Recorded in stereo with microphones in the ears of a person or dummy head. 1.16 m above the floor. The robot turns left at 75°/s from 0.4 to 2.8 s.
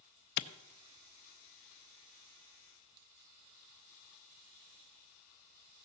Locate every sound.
0.4 s a clap: 65° left (ahead or behind), 0.6 m; by 0.5 s 55° left (ahead or behind), 0.6 m